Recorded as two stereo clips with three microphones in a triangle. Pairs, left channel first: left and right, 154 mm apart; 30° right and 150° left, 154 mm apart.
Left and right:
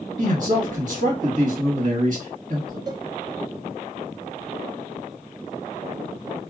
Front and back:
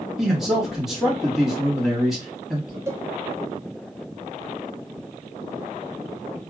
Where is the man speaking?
120° right, 1.5 m.